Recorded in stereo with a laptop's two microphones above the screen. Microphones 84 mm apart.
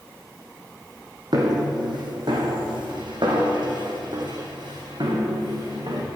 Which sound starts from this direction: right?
Footsteps, at 1.3 s.